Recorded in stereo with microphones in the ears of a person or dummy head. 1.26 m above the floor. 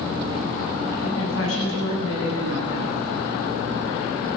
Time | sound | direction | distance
1.0 | a woman speaking | 90° left | 8.5 m